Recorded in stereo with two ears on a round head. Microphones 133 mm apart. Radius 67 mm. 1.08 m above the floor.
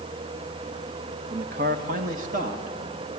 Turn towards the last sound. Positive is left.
turn(degrees=-55)  # may be behind; listen again after turning